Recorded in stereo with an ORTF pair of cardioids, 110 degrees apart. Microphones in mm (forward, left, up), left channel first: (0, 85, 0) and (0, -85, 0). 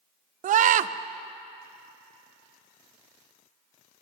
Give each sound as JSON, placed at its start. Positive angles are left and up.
{"t": 0.4, "sound": "a scream", "azimuth_deg": -50, "distance_m": 0.6}